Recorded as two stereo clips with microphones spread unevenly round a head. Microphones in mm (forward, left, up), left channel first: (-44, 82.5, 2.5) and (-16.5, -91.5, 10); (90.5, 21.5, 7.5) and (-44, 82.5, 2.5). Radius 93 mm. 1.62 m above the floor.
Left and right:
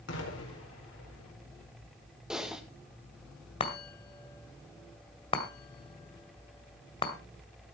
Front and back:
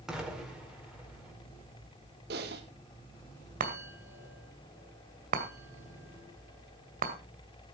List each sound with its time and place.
0.1 s an explosion: 70° left, 4.5 m
2.3 s typing on a keyboard: 165° right, 1.7 m
3.6 s a chime: 155° left, 2 m